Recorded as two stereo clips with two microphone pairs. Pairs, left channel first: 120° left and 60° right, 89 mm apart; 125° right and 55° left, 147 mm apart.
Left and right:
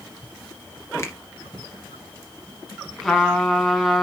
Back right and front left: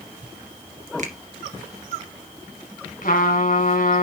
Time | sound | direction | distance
1.0 | a finger snap | 65° left | 2 m
3.0 | a trumpet | 155° right | 4 m